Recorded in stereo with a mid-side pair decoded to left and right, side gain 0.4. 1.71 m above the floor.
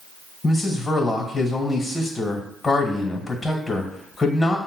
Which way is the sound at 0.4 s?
30° left.